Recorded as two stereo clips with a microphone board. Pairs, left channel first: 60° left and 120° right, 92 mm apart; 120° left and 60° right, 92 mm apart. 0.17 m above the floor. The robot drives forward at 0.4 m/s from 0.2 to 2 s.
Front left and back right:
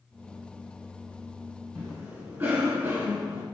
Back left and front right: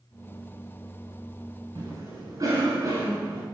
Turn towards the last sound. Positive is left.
turn(degrees=-75)